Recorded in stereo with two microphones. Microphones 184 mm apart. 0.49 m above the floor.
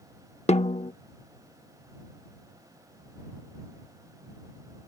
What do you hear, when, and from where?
0.5 s a snare drum: 35° left (ahead or behind)